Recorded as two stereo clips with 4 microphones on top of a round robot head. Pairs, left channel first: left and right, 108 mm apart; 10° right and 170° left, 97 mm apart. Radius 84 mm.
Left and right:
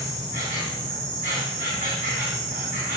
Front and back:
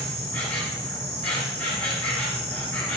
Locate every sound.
0.0 s an insect: 85° right, 1.5 m